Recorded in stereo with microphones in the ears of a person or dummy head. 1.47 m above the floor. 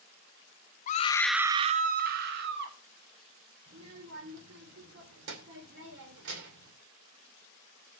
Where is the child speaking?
65° right (ahead or behind), 3 m.